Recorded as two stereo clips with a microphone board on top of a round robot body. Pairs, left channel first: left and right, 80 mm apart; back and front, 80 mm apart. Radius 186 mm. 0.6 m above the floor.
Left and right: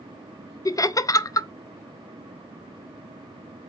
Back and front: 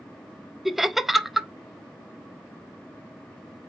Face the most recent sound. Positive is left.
turn(degrees=85)